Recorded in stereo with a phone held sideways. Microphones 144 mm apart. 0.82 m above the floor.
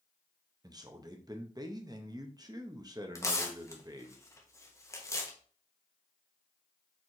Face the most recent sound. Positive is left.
turn(degrees=20)  # may be behind; listen again after turning